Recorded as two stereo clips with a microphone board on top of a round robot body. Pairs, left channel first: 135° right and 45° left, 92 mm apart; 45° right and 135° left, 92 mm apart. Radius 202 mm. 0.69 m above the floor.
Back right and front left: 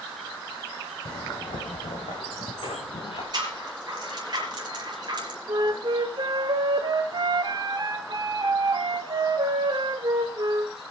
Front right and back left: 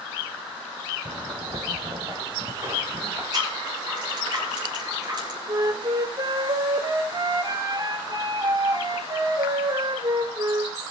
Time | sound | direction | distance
1.1 | footsteps | 175° right | 3 m
3.3 | a rattle | 90° left | 5 m
5.5 | a flute | 90° left | 0.6 m